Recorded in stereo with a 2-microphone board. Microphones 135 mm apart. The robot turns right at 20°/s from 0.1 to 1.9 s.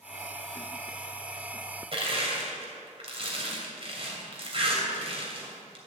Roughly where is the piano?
I don't hear a piano.